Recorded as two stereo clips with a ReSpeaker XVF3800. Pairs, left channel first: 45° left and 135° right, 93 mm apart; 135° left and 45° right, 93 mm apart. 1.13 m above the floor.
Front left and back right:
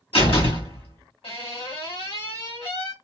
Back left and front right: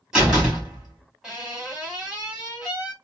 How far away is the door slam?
About 2 m.